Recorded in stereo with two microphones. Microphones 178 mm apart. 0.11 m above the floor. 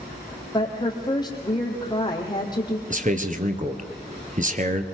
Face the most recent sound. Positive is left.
turn(degrees=-45)  # may be behind; listen again after turning